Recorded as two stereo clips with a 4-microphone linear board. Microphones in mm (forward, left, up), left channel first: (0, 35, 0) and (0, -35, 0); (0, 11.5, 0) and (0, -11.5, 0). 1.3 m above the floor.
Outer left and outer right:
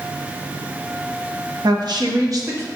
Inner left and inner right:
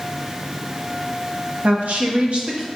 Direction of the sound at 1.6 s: 70° right (ahead or behind).